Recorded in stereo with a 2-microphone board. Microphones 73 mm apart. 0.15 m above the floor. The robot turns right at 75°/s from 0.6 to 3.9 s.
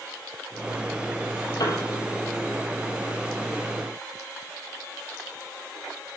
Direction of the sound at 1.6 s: 60° left (ahead or behind).